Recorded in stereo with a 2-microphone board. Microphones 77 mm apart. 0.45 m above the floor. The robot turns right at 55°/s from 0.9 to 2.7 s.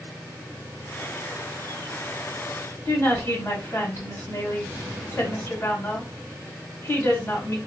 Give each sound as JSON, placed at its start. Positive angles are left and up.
{"t": 2.9, "sound": "a woman speaking", "side_deg": 35, "distance_m": 1.7}